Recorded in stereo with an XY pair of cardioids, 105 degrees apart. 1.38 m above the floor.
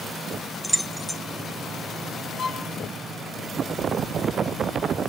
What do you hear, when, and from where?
0.6 s keys jangling: 5° right, 0.7 m
2.4 s a violin: 55° left, 1.5 m